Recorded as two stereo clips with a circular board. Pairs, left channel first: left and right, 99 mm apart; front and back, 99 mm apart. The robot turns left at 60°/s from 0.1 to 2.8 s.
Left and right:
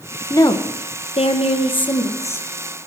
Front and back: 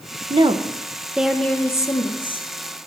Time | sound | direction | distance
0.3 | a woman speaking | 150° left | 1.1 m